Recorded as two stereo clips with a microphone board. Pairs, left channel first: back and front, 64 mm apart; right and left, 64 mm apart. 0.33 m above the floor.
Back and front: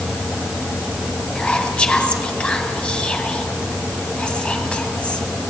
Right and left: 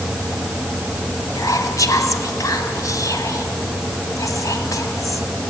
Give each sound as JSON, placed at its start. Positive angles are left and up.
{"t": 1.4, "sound": "whispering", "azimuth_deg": -105, "distance_m": 2.5}